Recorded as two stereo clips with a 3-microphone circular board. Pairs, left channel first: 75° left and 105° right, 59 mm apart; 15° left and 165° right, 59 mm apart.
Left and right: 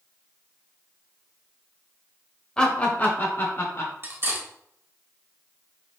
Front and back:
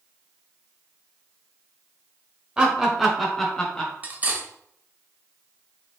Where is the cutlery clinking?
120° right, 0.9 m.